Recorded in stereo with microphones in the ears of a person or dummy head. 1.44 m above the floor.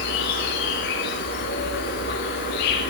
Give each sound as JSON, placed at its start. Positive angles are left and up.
{"t": 0.0, "sound": "an insect", "side_deg": 60, "distance_m": 1.3}